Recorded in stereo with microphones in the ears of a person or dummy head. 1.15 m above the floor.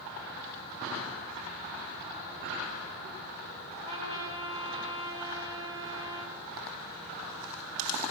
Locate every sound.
3.8 s a trumpet: 40° right (ahead or behind), 5 m